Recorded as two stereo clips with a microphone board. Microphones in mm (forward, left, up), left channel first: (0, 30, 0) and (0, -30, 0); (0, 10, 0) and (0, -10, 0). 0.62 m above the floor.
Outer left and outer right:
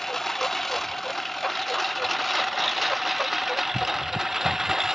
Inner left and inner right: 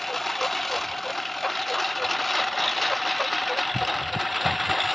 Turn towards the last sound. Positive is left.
turn(degrees=-5)  # may be behind; listen again after turning